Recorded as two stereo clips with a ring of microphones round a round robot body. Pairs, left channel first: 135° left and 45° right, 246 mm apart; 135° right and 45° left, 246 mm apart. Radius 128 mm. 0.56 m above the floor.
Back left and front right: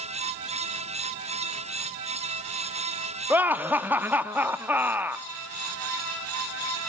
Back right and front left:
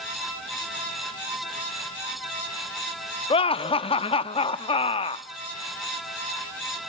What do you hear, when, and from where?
3.3 s laughter: 115° right, 0.7 m